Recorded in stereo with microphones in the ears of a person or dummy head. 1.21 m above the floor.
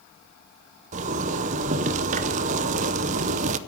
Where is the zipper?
35° right (ahead or behind), 0.6 m.